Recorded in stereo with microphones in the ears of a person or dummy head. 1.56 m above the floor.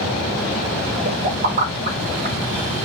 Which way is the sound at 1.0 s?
55° right (ahead or behind).